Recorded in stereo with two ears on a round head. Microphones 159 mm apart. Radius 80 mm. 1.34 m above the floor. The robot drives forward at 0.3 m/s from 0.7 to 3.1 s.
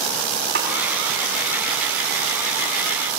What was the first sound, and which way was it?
A snare drum, 60° right (ahead or behind).